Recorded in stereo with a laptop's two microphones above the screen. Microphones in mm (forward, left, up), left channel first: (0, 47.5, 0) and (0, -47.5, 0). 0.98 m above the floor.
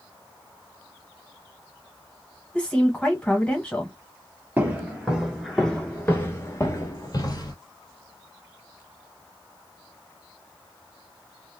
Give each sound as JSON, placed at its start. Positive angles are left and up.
{"t": 2.5, "sound": "a woman speaking", "side_deg": 15, "distance_m": 1.0}
{"t": 4.6, "sound": "footsteps", "side_deg": -20, "distance_m": 1.1}